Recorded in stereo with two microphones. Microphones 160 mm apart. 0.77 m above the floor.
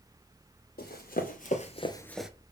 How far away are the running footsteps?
About 1.7 m.